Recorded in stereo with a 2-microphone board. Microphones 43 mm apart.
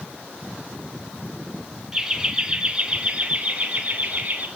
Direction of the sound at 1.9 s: 10° right (ahead or behind).